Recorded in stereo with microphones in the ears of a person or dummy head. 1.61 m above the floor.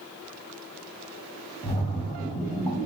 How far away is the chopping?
I don't hear chopping.